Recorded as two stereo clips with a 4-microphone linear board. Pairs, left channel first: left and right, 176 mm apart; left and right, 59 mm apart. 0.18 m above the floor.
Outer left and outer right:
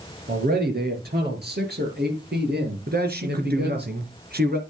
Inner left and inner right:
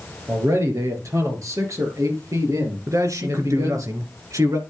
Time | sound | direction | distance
0.3 | a man speaking | 60° right (ahead or behind) | 4 m
2.9 | a man speaking | 65° right (ahead or behind) | 2.5 m